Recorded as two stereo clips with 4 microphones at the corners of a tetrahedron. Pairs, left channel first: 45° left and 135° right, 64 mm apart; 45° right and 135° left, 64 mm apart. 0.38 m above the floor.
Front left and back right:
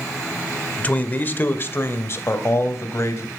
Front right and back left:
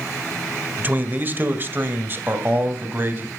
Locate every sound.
0.8 s a man speaking: 100° left, 1.3 m; by 3.3 s 85° left, 2.5 m